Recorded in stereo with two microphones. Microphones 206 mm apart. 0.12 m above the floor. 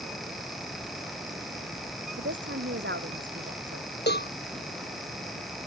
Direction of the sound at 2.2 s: 65° right (ahead or behind).